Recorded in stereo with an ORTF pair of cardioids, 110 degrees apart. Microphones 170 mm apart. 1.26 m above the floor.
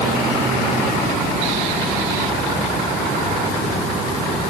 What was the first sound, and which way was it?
Only background noise.